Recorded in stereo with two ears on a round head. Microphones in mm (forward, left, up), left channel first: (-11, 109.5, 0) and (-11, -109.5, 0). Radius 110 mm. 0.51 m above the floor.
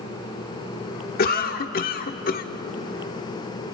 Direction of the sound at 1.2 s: 40° left (ahead or behind).